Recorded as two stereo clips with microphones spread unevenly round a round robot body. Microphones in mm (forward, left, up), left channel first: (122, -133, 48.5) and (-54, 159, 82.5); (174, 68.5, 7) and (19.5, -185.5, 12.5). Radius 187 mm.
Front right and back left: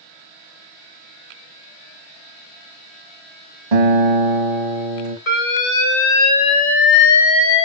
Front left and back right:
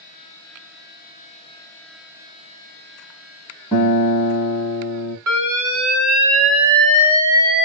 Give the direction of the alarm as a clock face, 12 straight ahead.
3 o'clock.